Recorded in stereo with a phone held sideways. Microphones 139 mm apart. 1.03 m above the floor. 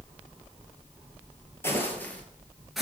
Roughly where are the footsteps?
Centre.